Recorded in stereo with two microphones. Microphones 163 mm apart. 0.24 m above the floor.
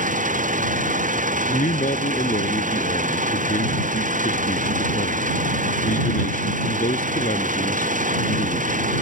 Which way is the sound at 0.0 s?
50° right (ahead or behind).